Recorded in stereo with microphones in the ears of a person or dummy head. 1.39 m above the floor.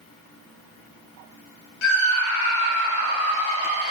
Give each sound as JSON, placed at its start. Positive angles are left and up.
{"t": 1.8, "sound": "a scream", "side_deg": 70, "distance_m": 1.0}